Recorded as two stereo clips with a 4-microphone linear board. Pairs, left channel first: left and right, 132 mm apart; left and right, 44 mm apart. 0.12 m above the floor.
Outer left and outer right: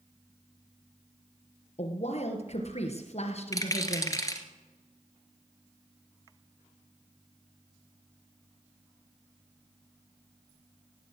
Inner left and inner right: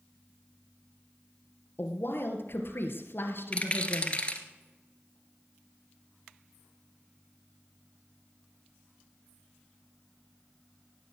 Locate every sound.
1.8 s a woman speaking: 55° left (ahead or behind), 2.5 m
3.5 s a rattle: 25° left (ahead or behind), 1.8 m